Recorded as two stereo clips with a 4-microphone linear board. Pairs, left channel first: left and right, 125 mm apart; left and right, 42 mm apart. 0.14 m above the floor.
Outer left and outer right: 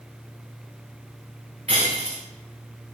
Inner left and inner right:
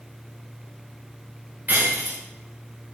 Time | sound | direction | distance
1.7 | breaking glass | 50° right (ahead or behind) | 6.5 m